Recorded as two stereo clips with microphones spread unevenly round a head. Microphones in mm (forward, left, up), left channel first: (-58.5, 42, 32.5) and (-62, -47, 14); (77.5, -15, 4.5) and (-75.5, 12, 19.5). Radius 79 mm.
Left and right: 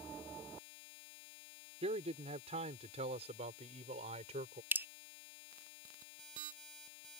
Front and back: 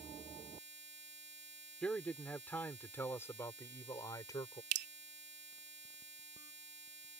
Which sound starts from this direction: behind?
Dripping, at 4.7 s.